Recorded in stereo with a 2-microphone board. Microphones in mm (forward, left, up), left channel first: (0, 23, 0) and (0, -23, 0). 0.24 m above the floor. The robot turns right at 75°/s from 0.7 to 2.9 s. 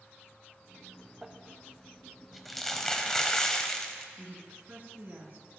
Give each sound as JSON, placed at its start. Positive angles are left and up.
{"t": 1.2, "sound": "crumpling", "side_deg": -20, "distance_m": 0.8}
{"t": 4.2, "sound": "a woman speaking", "side_deg": -45, "distance_m": 2.5}